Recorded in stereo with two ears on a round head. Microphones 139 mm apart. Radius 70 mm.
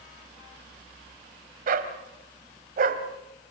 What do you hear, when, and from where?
1.7 s a dog barking: 60° right (ahead or behind), 1.8 m